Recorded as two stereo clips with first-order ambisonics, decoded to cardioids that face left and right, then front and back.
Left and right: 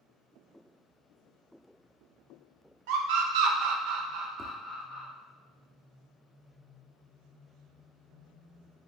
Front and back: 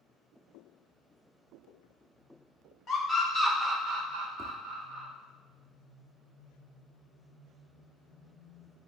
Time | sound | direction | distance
2.9 | a scream | 75° right | 0.8 m
4.4 | tapping | 100° left | 0.6 m